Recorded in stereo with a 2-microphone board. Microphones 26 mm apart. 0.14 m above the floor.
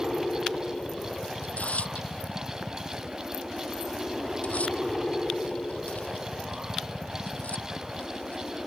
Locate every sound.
0.0 s a helicopter: 30° left (ahead or behind)
1.4 s tearing paper: 70° left (ahead or behind)